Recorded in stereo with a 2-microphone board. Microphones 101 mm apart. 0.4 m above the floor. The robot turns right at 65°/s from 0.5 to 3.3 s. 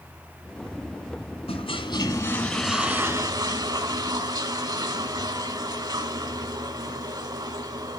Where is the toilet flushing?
105° left, 2 m; by 8.0 s 140° right, 2 m.